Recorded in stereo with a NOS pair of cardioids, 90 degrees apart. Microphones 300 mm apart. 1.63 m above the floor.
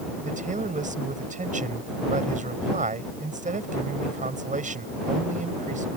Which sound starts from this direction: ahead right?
A man speaking, at 0.2 s.